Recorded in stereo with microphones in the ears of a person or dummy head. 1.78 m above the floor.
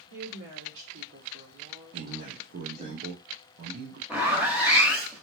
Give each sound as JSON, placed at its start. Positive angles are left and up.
{"t": 0.1, "sound": "a woman speaking", "side_deg": -75, "distance_m": 1.7}
{"t": 1.9, "sound": "a man speaking", "side_deg": -55, "distance_m": 0.7}
{"t": 4.1, "sound": "a zipper", "side_deg": -10, "distance_m": 1.2}